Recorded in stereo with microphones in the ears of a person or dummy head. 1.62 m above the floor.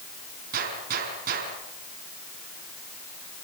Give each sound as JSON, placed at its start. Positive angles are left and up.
{"t": 0.5, "sound": "a gunshot", "side_deg": -50, "distance_m": 5.5}